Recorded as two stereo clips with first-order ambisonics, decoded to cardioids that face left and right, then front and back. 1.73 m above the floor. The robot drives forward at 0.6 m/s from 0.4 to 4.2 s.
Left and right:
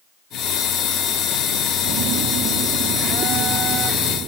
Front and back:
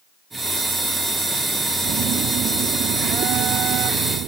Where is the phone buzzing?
125° right; by 4.3 s 145° right.